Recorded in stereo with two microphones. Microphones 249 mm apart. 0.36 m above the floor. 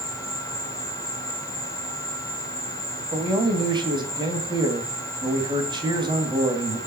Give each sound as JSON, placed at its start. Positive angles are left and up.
{"t": 0.0, "sound": "an insect", "side_deg": 10, "distance_m": 4.0}
{"t": 3.1, "sound": "a man speaking", "side_deg": -15, "distance_m": 2.5}